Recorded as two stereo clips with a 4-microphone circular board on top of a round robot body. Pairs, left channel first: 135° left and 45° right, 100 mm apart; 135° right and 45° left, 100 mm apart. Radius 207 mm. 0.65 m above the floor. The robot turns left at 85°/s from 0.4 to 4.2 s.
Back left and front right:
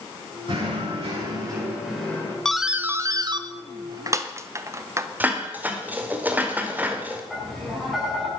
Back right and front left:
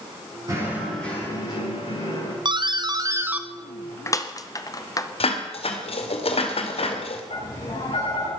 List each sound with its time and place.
0.5 s knocking: 10° right, 9 m; by 2.4 s 170° right, 9 m
2.5 s a doorbell: 55° left, 1.5 m; by 5.1 s 95° right, 1.5 m
5.2 s dishes clattering: 120° right, 2 m
7.3 s tapping: 135° right, 7.5 m